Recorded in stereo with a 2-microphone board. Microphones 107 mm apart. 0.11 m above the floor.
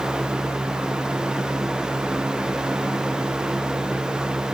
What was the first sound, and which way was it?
Only background noise.